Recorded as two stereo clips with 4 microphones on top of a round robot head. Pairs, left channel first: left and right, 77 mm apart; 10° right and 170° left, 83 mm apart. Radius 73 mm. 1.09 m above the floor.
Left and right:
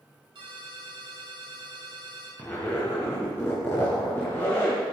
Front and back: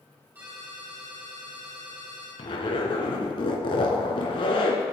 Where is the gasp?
I don't hear a gasp.